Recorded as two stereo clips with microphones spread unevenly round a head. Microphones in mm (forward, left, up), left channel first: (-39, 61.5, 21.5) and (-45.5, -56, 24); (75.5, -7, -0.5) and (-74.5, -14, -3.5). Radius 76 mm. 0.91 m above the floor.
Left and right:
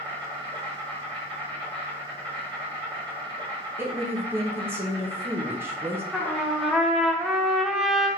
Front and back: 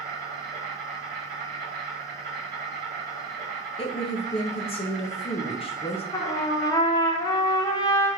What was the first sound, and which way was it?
An insect, 140° right.